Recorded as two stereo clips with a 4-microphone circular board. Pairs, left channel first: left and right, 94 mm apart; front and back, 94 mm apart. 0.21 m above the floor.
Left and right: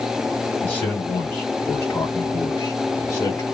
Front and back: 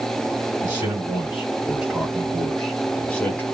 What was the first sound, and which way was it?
A man speaking, 150° left.